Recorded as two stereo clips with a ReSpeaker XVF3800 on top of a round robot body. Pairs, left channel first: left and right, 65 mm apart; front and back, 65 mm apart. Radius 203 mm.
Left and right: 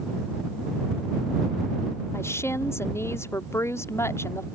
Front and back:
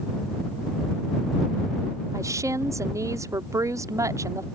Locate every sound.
2.1 s a woman speaking: 140° left